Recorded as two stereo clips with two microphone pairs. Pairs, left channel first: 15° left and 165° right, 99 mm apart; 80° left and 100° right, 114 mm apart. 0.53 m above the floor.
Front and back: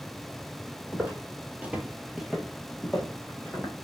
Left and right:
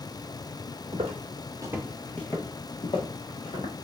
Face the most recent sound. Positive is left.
turn(degrees=95)